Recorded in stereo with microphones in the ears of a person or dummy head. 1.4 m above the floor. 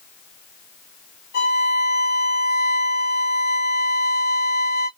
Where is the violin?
55° left (ahead or behind), 1.9 m.